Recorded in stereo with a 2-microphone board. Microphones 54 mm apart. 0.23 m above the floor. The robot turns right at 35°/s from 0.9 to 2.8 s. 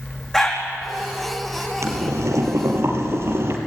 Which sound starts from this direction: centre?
A dog barking, at 0.3 s.